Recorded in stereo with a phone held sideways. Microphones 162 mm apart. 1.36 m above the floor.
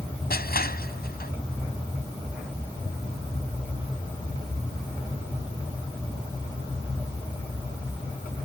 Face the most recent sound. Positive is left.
turn(degrees=70)  # may be behind; listen again after turning